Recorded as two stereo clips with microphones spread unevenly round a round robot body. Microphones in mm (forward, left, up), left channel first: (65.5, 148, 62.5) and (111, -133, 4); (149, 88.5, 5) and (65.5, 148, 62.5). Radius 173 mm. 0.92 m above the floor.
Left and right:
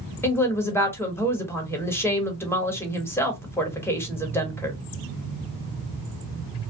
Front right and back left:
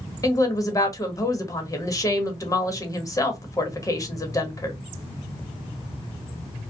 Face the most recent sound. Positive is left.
turn(degrees=15)